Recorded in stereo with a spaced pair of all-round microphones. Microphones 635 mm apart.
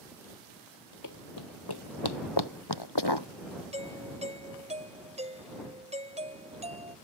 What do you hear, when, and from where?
1.0 s running footsteps: 30° left (ahead or behind); by 3.3 s 40° left (ahead or behind)
3.7 s a doorbell: 10° right (ahead or behind)